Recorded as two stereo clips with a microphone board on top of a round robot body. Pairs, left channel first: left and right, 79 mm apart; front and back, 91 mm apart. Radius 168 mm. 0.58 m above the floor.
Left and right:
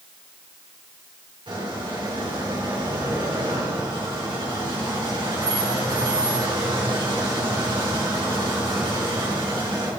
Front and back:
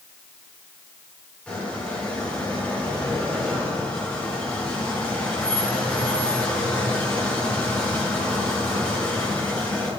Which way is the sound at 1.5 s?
75° right.